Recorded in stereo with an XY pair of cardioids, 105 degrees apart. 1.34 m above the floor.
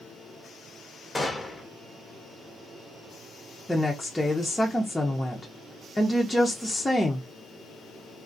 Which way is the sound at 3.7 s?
10° left.